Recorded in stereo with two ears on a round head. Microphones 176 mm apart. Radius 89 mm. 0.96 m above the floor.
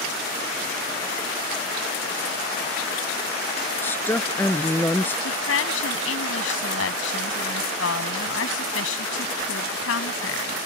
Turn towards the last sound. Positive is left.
turn(degrees=70)  # may be behind; listen again after turning